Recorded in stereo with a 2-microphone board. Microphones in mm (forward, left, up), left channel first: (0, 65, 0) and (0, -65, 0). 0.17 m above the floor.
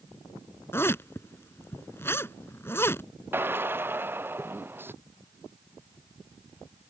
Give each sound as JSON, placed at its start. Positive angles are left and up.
{"t": 0.7, "sound": "a zipper", "side_deg": 20}
{"t": 3.3, "sound": "a drill", "side_deg": -15}